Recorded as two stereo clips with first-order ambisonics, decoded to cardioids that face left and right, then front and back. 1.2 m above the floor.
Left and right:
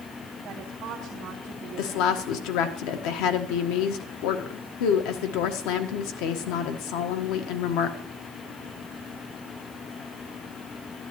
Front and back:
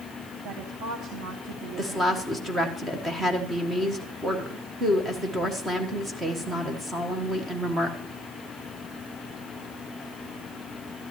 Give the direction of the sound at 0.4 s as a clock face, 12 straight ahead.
5 o'clock.